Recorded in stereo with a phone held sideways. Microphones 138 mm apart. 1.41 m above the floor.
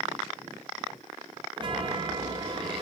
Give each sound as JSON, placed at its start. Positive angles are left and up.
{"t": 1.6, "sound": "a chime", "side_deg": -35, "distance_m": 1.5}